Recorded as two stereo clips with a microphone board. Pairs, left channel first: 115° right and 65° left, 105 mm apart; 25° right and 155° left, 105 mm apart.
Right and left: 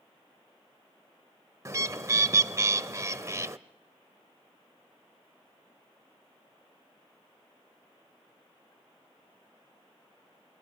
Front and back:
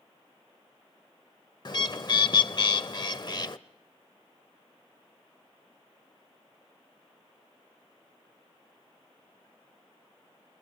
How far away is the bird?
About 0.8 m.